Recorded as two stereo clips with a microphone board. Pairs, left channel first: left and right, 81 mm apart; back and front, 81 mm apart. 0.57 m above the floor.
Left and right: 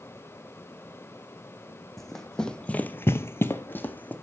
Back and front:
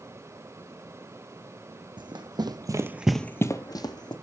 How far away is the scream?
I don't hear a scream.